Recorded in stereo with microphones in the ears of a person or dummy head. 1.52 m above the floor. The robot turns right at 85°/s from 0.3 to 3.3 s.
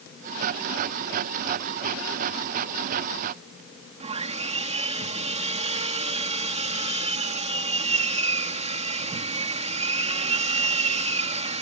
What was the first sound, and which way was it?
Sawing, 35° right (ahead or behind).